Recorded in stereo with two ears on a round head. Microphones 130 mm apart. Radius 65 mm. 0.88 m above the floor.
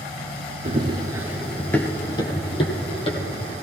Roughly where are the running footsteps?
Right.